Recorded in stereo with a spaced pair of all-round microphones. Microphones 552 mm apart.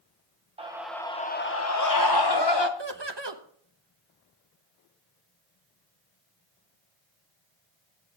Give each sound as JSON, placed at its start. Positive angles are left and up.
{"t": 0.6, "sound": "a scream", "side_deg": -10, "distance_m": 0.9}
{"t": 2.8, "sound": "laughter", "side_deg": -50, "distance_m": 1.3}